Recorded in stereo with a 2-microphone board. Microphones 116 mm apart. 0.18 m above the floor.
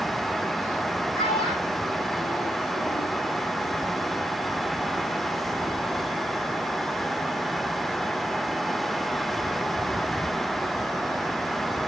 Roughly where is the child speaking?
Left.